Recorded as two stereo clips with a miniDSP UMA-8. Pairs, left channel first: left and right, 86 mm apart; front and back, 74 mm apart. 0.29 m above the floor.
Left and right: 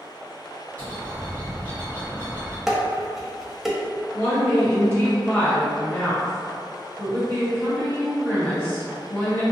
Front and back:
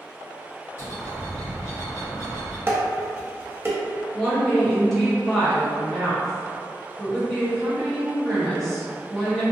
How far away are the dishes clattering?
About 0.6 m.